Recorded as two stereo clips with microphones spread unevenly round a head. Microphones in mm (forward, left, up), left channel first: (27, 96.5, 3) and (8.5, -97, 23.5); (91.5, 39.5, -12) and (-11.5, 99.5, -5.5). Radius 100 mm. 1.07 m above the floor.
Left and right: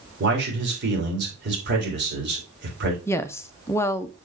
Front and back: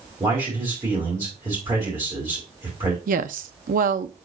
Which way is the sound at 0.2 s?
135° right.